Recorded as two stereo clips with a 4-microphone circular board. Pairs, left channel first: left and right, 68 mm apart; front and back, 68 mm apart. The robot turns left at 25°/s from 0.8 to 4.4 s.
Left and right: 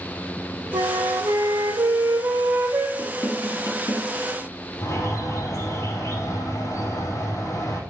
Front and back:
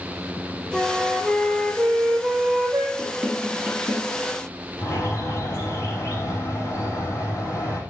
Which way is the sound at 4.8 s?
45° left.